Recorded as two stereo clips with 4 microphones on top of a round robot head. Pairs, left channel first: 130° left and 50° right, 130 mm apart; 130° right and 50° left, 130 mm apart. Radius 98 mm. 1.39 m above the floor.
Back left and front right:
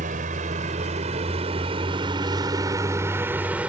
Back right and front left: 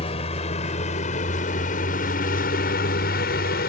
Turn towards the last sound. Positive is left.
turn(degrees=-130)